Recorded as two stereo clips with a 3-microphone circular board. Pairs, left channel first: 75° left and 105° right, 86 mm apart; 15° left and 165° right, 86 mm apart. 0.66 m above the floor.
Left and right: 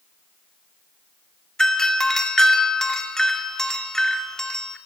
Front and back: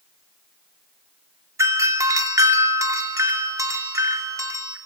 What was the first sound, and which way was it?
A doorbell, 155° left.